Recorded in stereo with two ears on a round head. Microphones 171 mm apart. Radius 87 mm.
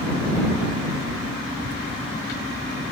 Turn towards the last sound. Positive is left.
turn(degrees=-60)  # may be behind; listen again after turning